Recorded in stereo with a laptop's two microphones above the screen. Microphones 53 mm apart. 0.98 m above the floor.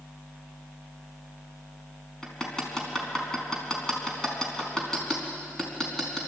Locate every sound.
2.2 s hammering: 10° left (ahead or behind), 4.5 m